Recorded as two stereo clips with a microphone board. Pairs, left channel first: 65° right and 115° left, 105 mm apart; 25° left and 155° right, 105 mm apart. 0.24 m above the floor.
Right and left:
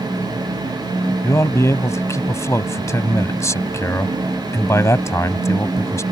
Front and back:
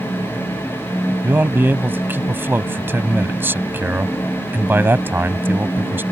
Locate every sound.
1.2 s a man speaking: 105° right